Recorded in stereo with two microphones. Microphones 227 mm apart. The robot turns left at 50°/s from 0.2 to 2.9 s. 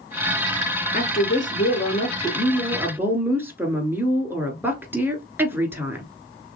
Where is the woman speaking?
85° left, 1.5 m; by 6.0 s 15° right, 1.5 m.